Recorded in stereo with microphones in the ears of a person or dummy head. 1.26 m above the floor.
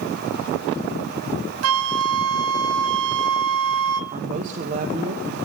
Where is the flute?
80° right, 0.7 m.